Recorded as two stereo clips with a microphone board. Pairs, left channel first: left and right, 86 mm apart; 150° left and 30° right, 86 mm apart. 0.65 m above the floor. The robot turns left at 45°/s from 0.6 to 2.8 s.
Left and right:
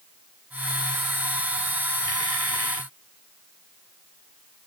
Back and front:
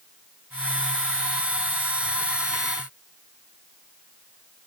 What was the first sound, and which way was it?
Only background noise.